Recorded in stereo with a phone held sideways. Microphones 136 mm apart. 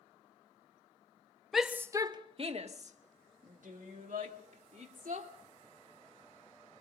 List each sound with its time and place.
1.5 s a shout: centre (ahead or behind), 0.8 m; by 5.3 s 80° right, 3 m